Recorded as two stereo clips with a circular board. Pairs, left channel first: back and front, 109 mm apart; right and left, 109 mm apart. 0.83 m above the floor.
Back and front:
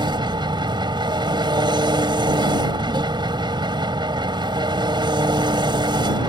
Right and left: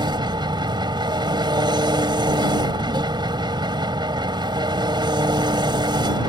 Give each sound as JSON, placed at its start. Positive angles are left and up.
{"t": 0.0, "sound": "an engine running", "azimuth_deg": 45}